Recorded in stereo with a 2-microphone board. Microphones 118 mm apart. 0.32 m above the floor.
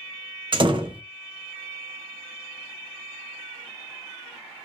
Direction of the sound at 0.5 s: 45° right (ahead or behind).